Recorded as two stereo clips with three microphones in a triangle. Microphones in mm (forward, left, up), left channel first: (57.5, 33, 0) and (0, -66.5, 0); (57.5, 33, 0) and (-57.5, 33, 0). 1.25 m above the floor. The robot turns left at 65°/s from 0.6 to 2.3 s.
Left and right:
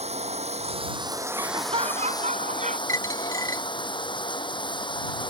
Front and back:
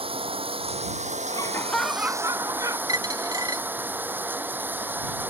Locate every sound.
0.0 s running water: 145° right; by 5.3 s 105° left
1.3 s laughter: 55° right; by 2.8 s 120° right
2.9 s a dropped coin: 120° left